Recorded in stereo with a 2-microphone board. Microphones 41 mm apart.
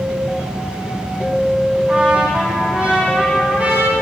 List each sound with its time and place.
1.9 s a trumpet: 35° right (ahead or behind), 5 m